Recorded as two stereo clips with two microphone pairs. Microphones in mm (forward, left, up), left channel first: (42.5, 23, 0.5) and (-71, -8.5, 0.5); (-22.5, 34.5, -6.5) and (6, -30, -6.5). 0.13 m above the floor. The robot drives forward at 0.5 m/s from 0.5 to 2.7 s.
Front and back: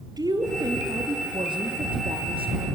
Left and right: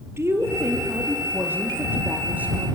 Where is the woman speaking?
115° right, 3 m; by 2.7 s 130° right, 3.5 m.